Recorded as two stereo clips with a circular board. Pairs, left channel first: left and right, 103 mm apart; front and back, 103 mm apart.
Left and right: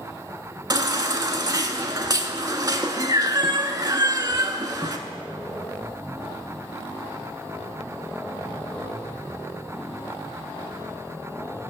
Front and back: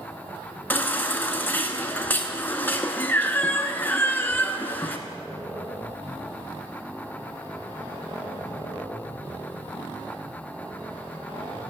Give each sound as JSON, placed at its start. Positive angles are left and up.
{"t": 0.7, "sound": "a baby crying", "azimuth_deg": -65, "distance_m": 0.6}